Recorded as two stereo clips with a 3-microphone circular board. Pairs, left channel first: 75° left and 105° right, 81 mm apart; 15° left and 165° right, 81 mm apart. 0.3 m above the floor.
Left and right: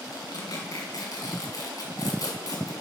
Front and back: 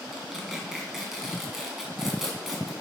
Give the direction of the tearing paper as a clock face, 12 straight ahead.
8 o'clock.